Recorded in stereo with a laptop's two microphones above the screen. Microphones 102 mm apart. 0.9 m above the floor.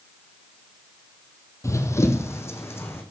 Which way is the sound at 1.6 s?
30° left (ahead or behind).